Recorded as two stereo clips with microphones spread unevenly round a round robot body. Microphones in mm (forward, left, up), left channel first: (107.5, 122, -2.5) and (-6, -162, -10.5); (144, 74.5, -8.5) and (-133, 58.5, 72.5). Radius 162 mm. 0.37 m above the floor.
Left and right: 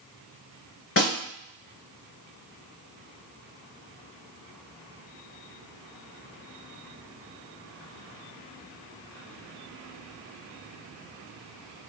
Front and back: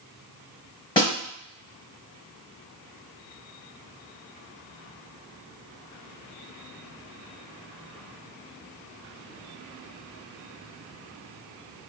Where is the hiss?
I don't hear a hiss.